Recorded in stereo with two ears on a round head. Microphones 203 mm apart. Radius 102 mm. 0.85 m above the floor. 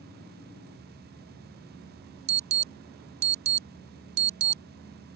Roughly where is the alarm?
Right.